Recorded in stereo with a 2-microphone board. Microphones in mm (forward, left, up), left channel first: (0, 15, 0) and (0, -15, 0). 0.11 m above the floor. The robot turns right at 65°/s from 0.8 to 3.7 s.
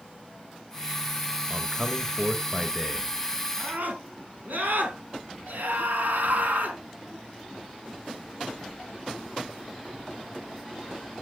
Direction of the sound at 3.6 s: 70° right (ahead or behind).